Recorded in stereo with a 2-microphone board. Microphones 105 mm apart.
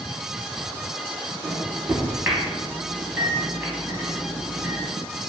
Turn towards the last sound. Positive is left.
turn(degrees=-20)  # may be behind; listen again after turning